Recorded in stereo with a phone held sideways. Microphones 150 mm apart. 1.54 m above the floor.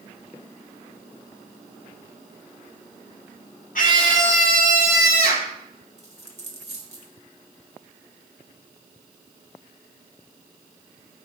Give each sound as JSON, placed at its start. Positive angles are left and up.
{"t": 3.8, "sound": "a scream", "side_deg": 65, "distance_m": 2.5}
{"t": 6.0, "sound": "a dropped coin", "side_deg": -45, "distance_m": 1.7}